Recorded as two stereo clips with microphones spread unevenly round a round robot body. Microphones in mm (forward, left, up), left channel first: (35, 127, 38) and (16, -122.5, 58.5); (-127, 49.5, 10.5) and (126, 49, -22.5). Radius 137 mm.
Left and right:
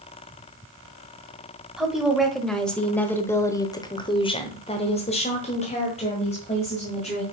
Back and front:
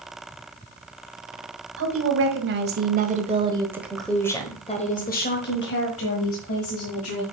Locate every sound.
1.8 s a woman speaking: 5° right, 1.9 m; by 7.2 s 150° left, 2.5 m